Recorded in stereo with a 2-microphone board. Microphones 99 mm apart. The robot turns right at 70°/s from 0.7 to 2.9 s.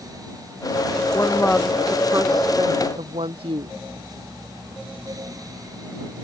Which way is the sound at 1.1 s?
140° left.